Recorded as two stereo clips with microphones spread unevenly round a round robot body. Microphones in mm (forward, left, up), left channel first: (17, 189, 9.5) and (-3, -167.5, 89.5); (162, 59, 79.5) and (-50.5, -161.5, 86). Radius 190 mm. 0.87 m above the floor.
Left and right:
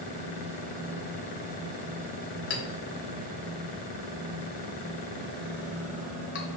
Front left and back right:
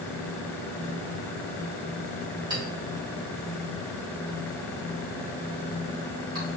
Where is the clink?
150° left, 1.1 m.